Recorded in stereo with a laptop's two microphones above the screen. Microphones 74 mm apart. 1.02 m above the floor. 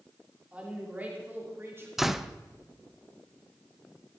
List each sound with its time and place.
0.5 s a woman speaking: 15° right (ahead or behind), 3 m; by 1.9 s 35° right (ahead or behind), 3 m
2.0 s a door slam: 5° right (ahead or behind), 0.6 m